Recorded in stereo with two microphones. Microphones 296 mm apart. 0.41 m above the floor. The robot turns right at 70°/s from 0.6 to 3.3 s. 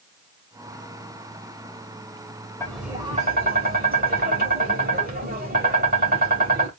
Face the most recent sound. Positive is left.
turn(degrees=-145)